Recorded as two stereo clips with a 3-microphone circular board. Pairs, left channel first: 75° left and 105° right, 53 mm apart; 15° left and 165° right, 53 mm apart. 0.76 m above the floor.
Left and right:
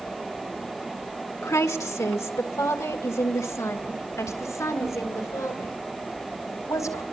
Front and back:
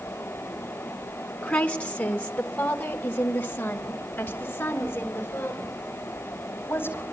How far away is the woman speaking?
About 2.0 m.